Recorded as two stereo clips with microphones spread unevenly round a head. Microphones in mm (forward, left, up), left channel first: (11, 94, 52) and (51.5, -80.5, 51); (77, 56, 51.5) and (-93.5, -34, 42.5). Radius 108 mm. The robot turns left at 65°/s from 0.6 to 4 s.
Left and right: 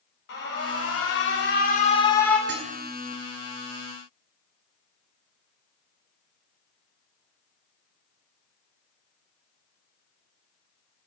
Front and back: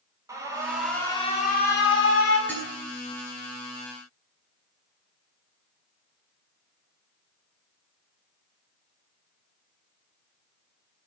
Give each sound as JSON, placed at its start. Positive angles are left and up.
{"t": 0.3, "sound": "an alarm", "azimuth_deg": 135, "distance_m": 7.5}
{"t": 2.5, "sound": "dishes clattering", "azimuth_deg": -55, "distance_m": 10.0}